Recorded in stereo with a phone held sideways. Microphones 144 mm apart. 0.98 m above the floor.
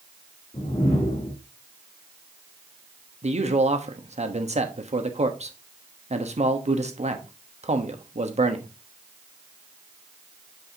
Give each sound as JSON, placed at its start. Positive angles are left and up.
{"t": 0.5, "sound": "a whoosh", "side_deg": 50, "distance_m": 3.0}
{"t": 3.2, "sound": "a man speaking", "side_deg": -50, "distance_m": 1.1}